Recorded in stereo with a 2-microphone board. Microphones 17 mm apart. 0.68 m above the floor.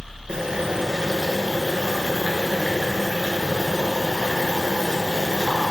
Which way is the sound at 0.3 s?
70° right (ahead or behind).